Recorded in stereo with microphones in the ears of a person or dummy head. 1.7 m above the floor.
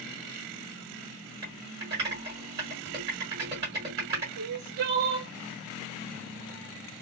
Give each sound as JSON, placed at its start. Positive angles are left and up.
{"t": 1.4, "sound": "typing on a keyboard", "side_deg": -20, "distance_m": 1.5}
{"t": 4.4, "sound": "crying", "side_deg": -50, "distance_m": 0.6}